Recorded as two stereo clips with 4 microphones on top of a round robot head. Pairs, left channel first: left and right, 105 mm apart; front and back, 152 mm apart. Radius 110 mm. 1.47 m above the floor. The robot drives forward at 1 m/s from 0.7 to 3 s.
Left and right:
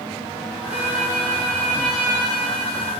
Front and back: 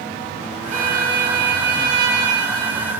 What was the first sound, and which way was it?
A violin, 170° right.